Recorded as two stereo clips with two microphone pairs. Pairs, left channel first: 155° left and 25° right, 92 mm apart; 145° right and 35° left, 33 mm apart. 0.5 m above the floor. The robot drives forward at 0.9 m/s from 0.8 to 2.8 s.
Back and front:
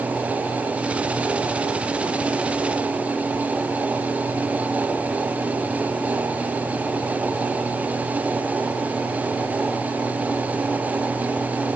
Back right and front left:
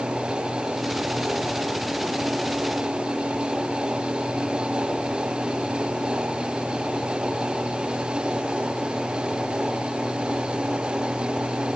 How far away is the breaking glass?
No breaking glass in this recording.